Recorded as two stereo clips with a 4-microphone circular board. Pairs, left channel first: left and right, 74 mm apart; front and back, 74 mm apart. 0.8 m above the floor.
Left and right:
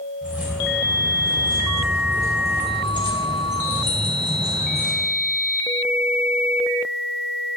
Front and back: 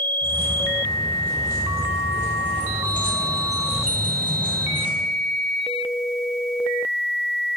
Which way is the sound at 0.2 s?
20° right.